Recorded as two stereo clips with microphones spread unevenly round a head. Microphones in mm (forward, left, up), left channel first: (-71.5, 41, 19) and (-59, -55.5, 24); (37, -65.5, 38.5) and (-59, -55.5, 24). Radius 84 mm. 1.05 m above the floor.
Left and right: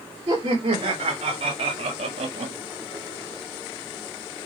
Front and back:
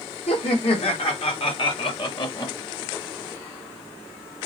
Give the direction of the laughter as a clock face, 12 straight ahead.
1 o'clock.